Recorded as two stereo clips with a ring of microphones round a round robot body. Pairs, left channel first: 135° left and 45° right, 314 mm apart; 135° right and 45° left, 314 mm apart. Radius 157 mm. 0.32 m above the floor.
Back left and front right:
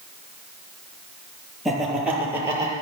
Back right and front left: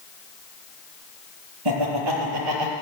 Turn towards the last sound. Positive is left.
turn(degrees=35)